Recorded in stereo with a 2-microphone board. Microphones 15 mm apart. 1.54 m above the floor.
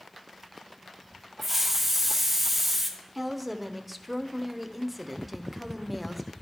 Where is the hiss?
20° right (ahead or behind), 0.9 m.